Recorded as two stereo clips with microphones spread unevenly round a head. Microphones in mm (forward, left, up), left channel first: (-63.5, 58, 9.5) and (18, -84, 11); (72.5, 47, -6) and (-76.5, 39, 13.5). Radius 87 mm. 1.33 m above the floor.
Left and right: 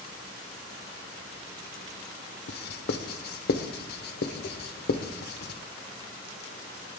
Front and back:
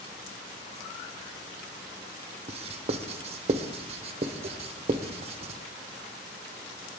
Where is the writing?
135° left, 1.0 m.